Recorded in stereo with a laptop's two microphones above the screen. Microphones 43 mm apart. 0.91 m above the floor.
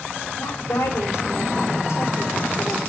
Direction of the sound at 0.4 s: 75° left (ahead or behind).